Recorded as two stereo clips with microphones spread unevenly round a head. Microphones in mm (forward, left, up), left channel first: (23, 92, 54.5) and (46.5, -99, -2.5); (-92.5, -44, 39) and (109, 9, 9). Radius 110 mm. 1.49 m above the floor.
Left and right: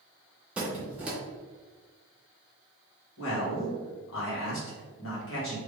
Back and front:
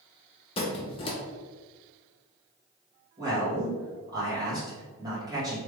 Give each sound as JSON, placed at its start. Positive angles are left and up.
{"t": 0.6, "sound": "a squeak", "azimuth_deg": 170, "distance_m": 0.6}
{"t": 3.2, "sound": "a man speaking", "azimuth_deg": 90, "distance_m": 1.9}